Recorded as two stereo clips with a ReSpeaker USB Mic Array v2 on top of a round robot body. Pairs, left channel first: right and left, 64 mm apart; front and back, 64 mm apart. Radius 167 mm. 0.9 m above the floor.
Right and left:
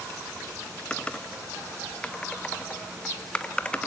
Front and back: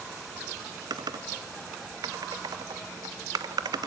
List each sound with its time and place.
0.9 s typing on a keyboard: 165° right, 0.8 m